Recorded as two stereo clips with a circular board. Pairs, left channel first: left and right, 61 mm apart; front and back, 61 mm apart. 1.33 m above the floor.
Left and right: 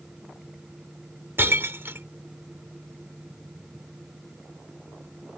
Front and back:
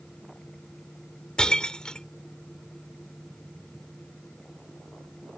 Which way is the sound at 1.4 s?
70° right.